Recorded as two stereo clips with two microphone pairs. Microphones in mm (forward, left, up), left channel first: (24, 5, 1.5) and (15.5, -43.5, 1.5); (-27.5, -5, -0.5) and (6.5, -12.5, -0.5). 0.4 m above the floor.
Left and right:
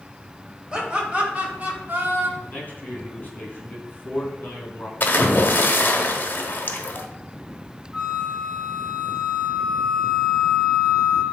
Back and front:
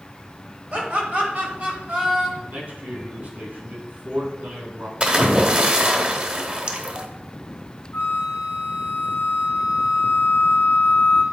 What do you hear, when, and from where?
0.7 s laughter: 30° right, 2 m; by 2.3 s 60° right, 2.5 m
2.4 s a man speaking: 25° left, 2.5 m
5.0 s a splash: 40° left, 0.9 m
7.9 s a flute: 175° left, 1.7 m